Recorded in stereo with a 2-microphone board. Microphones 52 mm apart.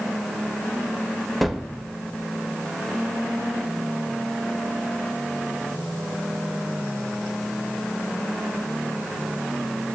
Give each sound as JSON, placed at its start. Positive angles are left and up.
{"t": 1.4, "sound": "a gunshot", "side_deg": 0, "distance_m": 0.5}